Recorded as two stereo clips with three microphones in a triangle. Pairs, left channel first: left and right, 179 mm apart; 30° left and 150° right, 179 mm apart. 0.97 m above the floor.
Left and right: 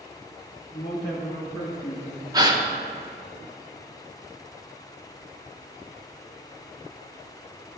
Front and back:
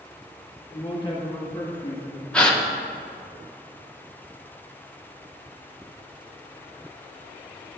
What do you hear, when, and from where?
0.7 s a man speaking: 95° left, 1.3 m
2.3 s a gasp: 50° right, 0.8 m